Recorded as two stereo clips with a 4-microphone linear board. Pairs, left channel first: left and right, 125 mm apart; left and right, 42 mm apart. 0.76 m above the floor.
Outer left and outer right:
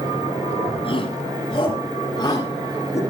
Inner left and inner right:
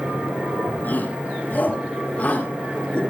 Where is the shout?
45° left (ahead or behind), 5.5 m; by 3.0 s 25° left (ahead or behind), 6 m.